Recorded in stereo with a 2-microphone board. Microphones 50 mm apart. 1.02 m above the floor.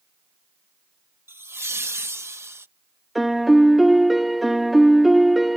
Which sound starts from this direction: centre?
A piano, at 3.1 s.